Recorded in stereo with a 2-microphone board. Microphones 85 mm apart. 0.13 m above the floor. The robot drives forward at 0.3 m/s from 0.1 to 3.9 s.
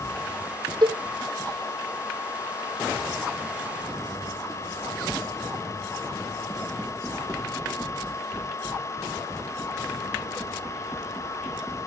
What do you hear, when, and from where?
0.8 s a cowbell: 60° right (ahead or behind), 1.5 m